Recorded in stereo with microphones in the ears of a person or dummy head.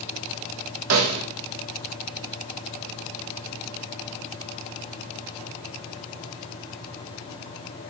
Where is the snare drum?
75° right (ahead or behind), 1.7 m.